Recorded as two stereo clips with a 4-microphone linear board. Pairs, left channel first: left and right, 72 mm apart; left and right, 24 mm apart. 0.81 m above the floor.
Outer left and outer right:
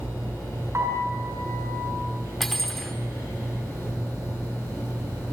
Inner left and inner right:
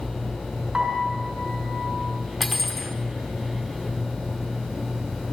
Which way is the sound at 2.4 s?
5° left (ahead or behind).